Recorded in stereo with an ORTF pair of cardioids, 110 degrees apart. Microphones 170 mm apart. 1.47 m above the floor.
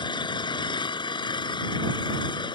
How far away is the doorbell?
I don't hear a doorbell.